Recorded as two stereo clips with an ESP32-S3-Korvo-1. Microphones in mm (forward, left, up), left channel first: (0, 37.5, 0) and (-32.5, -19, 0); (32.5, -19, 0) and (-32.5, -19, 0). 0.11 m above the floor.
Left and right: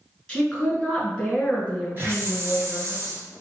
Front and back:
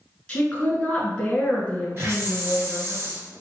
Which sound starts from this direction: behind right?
A hiss, at 2.0 s.